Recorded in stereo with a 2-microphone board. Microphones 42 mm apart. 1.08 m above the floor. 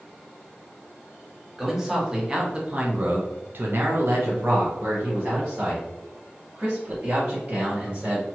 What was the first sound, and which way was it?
A man speaking, 10° right (ahead or behind).